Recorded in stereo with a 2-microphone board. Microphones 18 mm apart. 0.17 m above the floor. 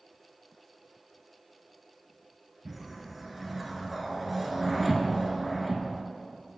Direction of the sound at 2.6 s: Centre (ahead or behind).